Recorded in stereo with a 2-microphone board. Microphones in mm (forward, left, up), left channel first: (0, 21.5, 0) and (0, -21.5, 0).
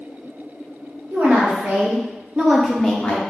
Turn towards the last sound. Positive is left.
turn(degrees=20)  # may be behind; listen again after turning